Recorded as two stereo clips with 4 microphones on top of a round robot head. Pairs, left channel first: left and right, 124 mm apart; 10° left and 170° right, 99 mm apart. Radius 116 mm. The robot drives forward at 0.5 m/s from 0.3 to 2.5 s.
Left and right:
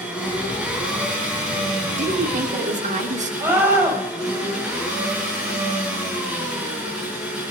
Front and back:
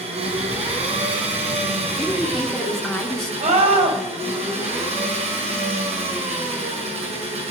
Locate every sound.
0.0 s an engine running: 175° right, 4.5 m
1.9 s a woman speaking: 70° right, 3 m; by 3.3 s 75° right, 3 m
3.4 s a scream: 165° right, 5 m